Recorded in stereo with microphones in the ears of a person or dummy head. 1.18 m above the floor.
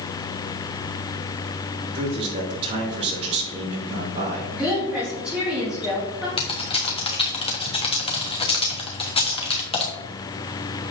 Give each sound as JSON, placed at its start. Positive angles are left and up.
{"t": 1.9, "sound": "a man speaking", "side_deg": -35, "distance_m": 3.0}
{"t": 4.5, "sound": "a woman speaking", "side_deg": -5, "distance_m": 3.0}
{"t": 6.4, "sound": "typing on a keyboard", "side_deg": 30, "distance_m": 1.3}